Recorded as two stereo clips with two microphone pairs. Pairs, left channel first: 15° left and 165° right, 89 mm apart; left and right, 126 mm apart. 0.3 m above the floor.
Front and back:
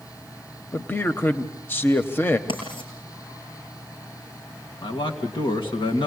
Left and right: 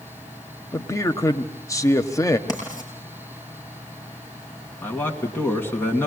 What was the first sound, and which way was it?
A man speaking, 55° left.